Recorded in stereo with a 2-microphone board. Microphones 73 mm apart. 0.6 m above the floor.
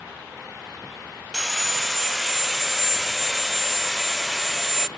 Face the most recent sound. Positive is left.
turn(degrees=0)  # may be behind; listen again after turning